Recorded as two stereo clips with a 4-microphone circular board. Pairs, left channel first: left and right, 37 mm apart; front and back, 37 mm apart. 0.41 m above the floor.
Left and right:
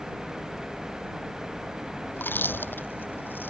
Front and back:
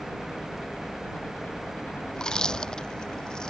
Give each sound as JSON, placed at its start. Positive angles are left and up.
{"t": 0.0, "sound": "a helicopter", "azimuth_deg": -20}
{"t": 2.1, "sound": "chewing", "azimuth_deg": 70}